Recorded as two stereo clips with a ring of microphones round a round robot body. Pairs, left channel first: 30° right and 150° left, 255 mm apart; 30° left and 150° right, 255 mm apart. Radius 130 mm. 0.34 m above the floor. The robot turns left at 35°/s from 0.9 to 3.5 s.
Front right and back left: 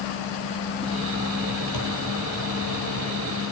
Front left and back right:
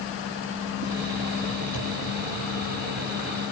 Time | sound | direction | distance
1.7 | a thud | 5° right | 5 m